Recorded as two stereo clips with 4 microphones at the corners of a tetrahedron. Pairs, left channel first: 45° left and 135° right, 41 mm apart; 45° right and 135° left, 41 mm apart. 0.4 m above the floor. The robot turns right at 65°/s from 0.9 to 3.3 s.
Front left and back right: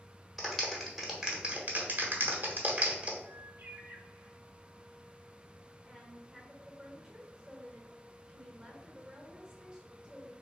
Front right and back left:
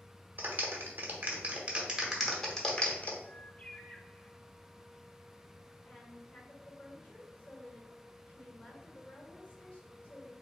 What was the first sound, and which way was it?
A clap, 130° left.